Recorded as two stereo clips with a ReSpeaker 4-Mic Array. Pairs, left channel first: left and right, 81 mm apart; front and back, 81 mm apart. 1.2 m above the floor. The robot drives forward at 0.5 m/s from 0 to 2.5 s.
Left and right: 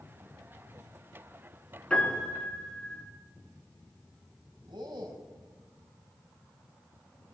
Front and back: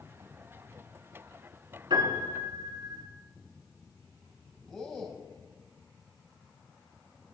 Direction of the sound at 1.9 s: 170° left.